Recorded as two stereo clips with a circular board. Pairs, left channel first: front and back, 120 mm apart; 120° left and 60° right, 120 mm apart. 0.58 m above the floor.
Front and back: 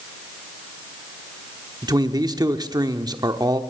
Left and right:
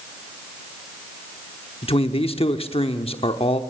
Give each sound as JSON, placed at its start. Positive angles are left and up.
{"t": 1.8, "sound": "a man speaking", "azimuth_deg": 130, "distance_m": 0.9}